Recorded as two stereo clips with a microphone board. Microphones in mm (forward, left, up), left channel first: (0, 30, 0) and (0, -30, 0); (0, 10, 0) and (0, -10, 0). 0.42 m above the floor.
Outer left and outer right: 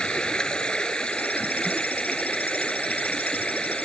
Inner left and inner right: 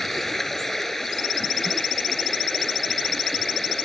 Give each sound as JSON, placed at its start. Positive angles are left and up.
{"t": 0.0, "sound": "running water", "side_deg": 15}